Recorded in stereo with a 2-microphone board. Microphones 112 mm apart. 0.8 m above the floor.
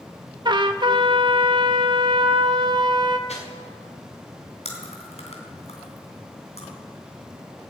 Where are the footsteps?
80° left, 5 m.